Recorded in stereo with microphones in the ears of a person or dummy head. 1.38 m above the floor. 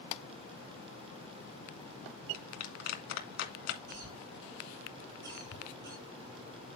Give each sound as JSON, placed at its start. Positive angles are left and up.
{"t": 2.3, "sound": "a clap", "side_deg": 55, "distance_m": 2.5}
{"t": 3.9, "sound": "a cough", "side_deg": -60, "distance_m": 6.5}